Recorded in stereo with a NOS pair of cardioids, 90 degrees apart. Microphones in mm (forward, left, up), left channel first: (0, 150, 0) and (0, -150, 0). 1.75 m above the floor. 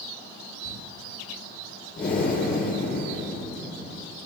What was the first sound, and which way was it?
Crumpling, 25° right.